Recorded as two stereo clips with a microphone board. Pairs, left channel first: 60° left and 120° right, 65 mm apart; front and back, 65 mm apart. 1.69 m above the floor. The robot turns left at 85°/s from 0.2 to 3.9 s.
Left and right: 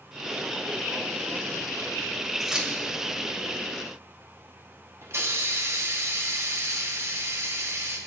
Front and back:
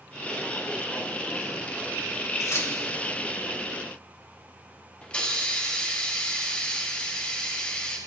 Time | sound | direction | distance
2.4 | keys jangling | 30° right | 2 m
5.0 | a hiss | 75° right | 1.6 m